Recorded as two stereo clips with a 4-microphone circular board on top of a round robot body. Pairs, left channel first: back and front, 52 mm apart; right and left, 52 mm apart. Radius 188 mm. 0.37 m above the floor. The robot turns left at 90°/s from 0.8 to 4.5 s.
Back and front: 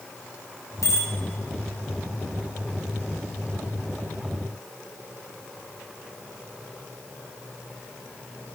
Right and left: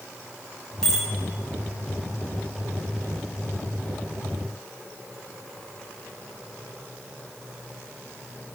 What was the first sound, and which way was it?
A bicycle bell, 165° right.